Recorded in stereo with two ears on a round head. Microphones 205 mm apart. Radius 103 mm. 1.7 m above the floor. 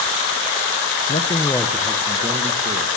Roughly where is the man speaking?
Left.